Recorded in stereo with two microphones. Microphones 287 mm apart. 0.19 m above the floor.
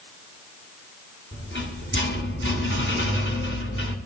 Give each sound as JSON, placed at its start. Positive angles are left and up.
{"t": 1.3, "sound": "a rattle", "side_deg": 45, "distance_m": 1.9}